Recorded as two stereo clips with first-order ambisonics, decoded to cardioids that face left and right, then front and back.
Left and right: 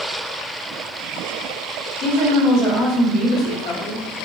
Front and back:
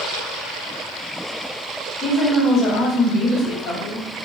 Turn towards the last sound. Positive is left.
turn(degrees=65)